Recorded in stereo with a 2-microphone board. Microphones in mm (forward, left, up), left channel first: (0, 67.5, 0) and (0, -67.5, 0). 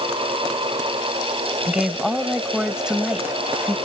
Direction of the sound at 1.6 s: 5° right (ahead or behind).